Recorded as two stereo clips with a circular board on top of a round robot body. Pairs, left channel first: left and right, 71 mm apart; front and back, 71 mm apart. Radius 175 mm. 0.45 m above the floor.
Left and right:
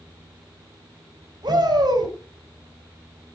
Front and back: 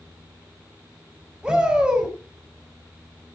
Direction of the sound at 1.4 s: 100° right.